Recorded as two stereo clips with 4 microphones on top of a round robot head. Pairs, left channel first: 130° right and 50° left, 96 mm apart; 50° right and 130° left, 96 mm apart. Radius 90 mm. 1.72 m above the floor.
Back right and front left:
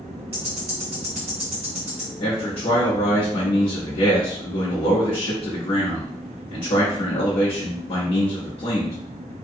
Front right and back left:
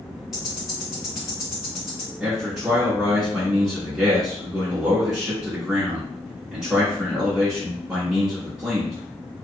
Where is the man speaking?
145° right, 0.9 m.